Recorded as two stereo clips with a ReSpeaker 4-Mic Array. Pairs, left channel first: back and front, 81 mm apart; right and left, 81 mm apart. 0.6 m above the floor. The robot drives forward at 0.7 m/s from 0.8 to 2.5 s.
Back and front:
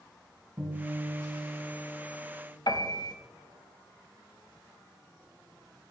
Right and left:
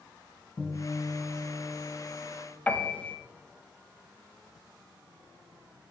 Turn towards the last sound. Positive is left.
turn(degrees=-160)